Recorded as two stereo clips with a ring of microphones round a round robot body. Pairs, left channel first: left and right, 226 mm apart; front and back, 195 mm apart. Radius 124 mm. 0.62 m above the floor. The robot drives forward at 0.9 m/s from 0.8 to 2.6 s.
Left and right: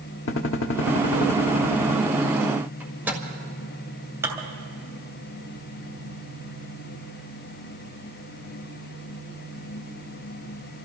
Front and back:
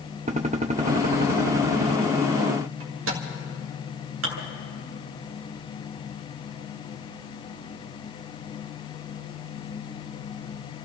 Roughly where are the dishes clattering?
Behind.